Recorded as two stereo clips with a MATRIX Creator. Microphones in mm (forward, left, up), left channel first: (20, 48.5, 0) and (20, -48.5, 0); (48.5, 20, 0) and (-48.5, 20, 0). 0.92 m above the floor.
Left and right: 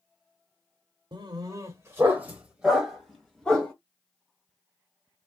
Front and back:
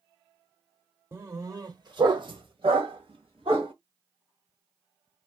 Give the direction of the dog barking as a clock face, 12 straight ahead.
4 o'clock.